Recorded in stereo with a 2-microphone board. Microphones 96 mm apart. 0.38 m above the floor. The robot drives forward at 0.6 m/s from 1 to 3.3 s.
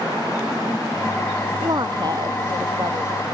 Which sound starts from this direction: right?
A woman speaking, at 1.6 s.